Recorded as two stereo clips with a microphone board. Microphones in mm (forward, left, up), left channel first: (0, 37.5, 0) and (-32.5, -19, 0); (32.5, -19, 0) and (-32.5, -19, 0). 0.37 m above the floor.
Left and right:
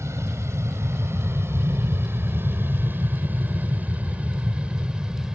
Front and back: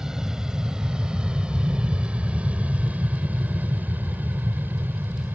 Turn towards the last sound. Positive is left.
turn(degrees=170)